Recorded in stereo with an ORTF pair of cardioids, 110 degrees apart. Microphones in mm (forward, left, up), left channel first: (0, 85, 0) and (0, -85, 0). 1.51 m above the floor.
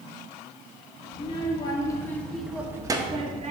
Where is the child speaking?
35° left, 2 m; by 3.5 s 45° right, 1.6 m.